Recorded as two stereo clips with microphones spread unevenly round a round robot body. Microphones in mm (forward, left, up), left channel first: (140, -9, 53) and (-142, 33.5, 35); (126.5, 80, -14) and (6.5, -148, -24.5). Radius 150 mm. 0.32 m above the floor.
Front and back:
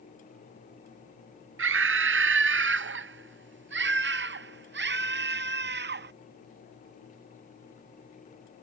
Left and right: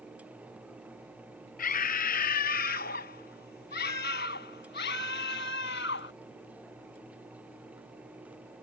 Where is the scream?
125° left; by 6.1 s 120° left.